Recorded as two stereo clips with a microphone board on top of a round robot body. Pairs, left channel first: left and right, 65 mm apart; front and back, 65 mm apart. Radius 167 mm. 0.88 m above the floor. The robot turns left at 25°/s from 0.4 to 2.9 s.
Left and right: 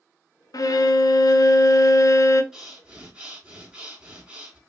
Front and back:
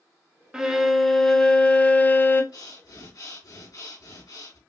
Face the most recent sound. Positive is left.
turn(degrees=-15)